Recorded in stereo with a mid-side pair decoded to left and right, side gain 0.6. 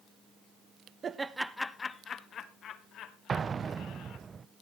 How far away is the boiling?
No boiling in this recording.